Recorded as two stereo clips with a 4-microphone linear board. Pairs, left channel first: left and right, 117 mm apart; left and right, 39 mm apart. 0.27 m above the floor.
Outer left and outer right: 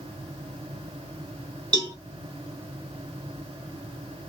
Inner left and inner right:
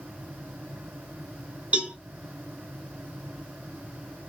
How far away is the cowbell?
About 1.5 m.